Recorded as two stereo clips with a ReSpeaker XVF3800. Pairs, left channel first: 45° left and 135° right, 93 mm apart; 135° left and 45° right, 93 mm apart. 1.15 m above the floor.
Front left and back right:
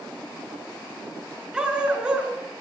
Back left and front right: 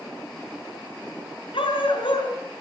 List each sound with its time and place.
1.5 s a dog barking: 145° left, 5 m